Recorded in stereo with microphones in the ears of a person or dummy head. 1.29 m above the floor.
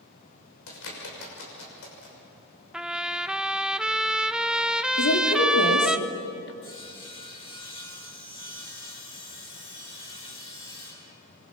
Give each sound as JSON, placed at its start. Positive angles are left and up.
{"t": 0.7, "sound": "a bird", "side_deg": 75, "distance_m": 6.0}
{"t": 2.7, "sound": "a trumpet", "side_deg": -5, "distance_m": 0.5}
{"t": 5.0, "sound": "a woman speaking", "side_deg": 65, "distance_m": 3.0}
{"t": 6.6, "sound": "sawing", "side_deg": 30, "distance_m": 6.5}